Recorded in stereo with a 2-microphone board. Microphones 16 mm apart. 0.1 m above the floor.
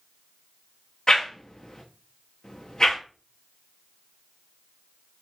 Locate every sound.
1.1 s a whoosh: 35° left (ahead or behind), 0.7 m